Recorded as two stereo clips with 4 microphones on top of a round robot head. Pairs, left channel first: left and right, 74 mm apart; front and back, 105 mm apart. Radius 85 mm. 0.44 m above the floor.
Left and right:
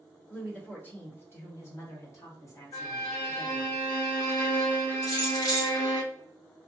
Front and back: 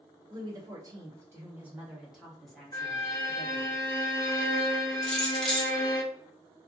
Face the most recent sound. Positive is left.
turn(degrees=85)